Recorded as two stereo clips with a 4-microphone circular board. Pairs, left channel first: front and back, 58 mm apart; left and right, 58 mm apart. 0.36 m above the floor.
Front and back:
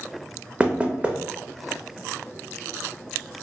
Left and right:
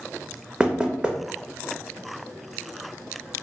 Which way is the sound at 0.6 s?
145° right.